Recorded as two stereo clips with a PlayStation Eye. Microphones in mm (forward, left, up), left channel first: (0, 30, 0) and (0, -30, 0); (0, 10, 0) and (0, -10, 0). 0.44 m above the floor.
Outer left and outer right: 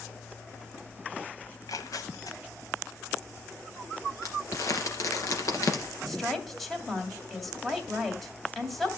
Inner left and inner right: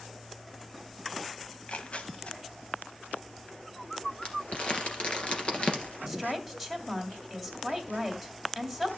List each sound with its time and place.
1.5 s tearing paper: 75° left (ahead or behind), 1.0 m
4.2 s crumpling: 65° left (ahead or behind), 2.5 m
6.1 s a woman speaking: 5° left (ahead or behind), 2.5 m